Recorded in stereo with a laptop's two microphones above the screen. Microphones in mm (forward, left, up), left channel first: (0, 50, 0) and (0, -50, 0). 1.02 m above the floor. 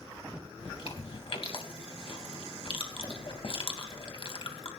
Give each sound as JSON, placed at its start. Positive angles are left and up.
{"t": 0.6, "sound": "chewing", "side_deg": 55, "distance_m": 3.0}